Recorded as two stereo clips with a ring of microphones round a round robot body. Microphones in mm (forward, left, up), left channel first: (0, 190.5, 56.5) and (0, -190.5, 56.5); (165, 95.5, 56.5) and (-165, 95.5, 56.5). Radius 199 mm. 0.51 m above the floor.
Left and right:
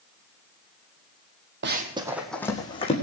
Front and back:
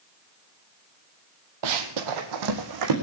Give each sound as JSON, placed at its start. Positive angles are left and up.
{"t": 1.6, "sound": "running footsteps", "azimuth_deg": -150, "distance_m": 1.3}